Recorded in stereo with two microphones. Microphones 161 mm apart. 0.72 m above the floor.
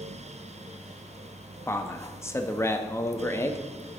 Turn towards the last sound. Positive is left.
turn(degrees=15)  # may be behind; listen again after turning